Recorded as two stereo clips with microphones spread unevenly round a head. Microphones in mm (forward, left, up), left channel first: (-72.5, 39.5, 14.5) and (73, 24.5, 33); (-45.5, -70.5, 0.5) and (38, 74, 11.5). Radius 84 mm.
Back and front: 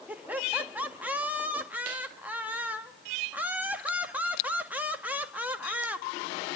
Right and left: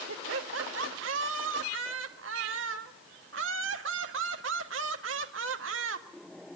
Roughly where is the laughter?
Left.